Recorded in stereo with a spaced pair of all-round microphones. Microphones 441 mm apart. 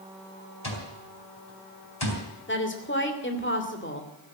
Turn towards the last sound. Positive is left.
turn(degrees=25)  # may be behind; listen again after turning